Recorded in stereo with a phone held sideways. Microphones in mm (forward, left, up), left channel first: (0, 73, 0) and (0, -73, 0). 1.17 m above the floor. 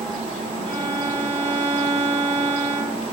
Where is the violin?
40° right (ahead or behind), 3.5 m.